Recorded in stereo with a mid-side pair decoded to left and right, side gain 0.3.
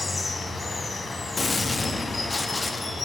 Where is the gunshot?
45° left, 1.4 m.